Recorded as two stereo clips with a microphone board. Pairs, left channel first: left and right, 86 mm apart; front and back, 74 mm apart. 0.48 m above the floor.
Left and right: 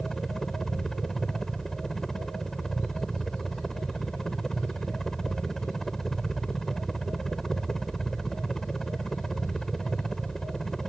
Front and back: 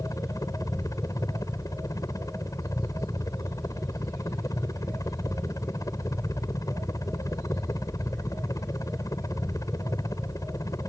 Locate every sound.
0.0 s a helicopter: 5° left